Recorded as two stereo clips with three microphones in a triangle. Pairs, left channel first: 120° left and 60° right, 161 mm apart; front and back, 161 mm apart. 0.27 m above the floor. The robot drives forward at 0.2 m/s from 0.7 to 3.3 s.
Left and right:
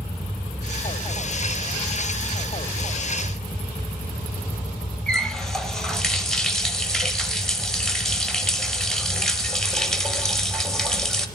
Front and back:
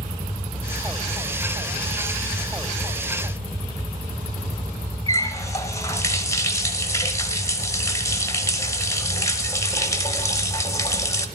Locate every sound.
5.1 s a running tap: 40° left, 0.7 m